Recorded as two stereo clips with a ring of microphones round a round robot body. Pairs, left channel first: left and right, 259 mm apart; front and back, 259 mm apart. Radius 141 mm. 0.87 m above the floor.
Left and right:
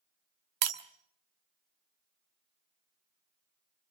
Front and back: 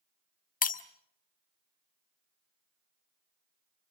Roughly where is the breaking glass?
Ahead right.